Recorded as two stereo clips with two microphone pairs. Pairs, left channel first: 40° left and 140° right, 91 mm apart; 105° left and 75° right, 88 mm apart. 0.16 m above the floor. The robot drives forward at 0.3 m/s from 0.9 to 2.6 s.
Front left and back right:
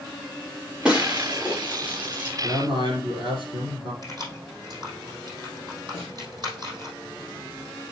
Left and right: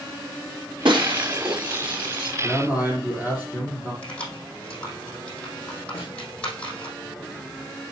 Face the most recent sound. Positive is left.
turn(degrees=170)